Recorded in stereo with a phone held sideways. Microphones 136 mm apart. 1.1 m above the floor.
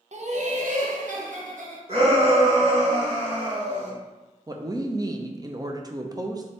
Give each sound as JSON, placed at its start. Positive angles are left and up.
{"t": 0.1, "sound": "laughter", "side_deg": -55, "distance_m": 0.7}
{"t": 1.9, "sound": "a shout", "side_deg": -45, "distance_m": 1.5}
{"t": 4.5, "sound": "a woman speaking", "side_deg": -30, "distance_m": 0.5}